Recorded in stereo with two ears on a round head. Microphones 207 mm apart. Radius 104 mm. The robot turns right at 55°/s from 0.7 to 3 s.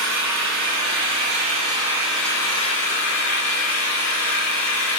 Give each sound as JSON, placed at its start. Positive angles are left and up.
{"t": 0.0, "sound": "an engine running", "azimuth_deg": -75, "distance_m": 2.5}